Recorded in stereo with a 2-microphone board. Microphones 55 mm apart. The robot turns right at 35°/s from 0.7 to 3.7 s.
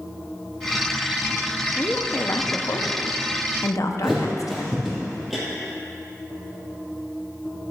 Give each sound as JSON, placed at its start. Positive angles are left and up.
{"t": 1.8, "sound": "a woman speaking", "side_deg": 30, "distance_m": 0.7}
{"t": 4.0, "sound": "a thud", "side_deg": 0, "distance_m": 3.0}